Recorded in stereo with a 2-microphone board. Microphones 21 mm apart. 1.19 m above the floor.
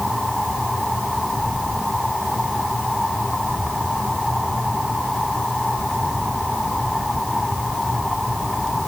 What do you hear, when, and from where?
Only background noise.